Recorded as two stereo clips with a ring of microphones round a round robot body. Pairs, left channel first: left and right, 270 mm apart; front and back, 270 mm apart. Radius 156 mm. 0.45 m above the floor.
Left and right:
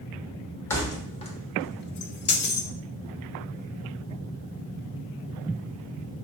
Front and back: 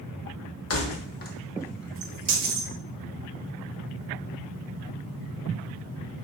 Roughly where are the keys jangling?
Ahead.